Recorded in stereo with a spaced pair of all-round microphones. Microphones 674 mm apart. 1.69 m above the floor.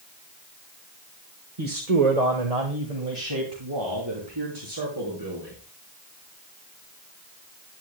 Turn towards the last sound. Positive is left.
turn(degrees=-35)  # may be behind; listen again after turning